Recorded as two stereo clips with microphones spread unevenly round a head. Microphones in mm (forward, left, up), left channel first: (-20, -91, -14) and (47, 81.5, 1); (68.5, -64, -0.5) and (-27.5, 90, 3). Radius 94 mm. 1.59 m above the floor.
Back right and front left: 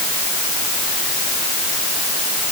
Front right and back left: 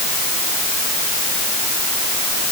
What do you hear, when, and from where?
Only background noise.